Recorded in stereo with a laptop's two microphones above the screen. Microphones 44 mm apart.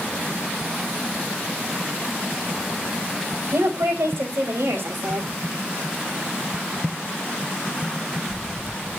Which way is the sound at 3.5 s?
75° right (ahead or behind).